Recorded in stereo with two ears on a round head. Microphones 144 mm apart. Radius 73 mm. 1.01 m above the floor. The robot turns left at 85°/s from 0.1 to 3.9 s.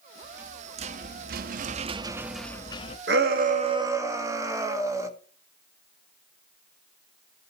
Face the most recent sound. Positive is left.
turn(degrees=-160)